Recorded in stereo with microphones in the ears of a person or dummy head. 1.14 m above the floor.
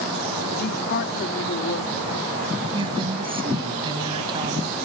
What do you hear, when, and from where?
0.6 s a woman speaking: 55° left (ahead or behind)
2.7 s a woman speaking: 25° right (ahead or behind)